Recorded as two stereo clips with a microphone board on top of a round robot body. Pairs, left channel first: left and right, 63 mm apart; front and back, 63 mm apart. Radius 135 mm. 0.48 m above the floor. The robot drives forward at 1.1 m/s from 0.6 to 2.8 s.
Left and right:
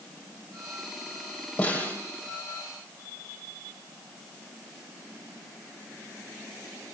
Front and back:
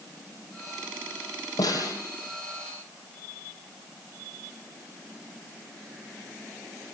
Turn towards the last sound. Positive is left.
turn(degrees=35)